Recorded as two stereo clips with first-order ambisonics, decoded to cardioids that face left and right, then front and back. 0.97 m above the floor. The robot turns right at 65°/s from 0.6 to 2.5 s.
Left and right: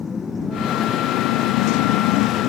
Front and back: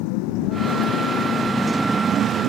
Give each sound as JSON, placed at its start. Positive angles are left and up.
{"t": 0.0, "sound": "a motorcycle", "azimuth_deg": 15}